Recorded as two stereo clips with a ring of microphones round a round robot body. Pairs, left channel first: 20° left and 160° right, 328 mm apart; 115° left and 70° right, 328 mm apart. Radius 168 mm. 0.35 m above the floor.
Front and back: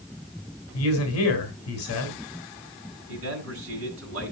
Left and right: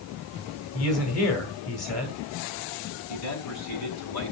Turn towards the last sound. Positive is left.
turn(degrees=155)